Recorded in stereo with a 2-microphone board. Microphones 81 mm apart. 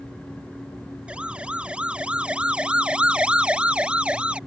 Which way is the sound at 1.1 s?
15° right (ahead or behind).